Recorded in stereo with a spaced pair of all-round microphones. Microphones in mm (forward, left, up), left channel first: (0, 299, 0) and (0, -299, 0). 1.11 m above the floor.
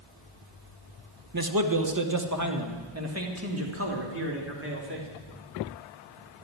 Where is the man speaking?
35° right (ahead or behind), 1.0 m; by 5.1 s 20° right (ahead or behind), 3.5 m.